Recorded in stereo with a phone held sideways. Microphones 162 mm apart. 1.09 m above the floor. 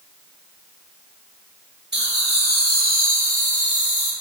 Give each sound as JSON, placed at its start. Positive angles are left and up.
{"t": 1.9, "sound": "laughter", "side_deg": -85, "distance_m": 2.0}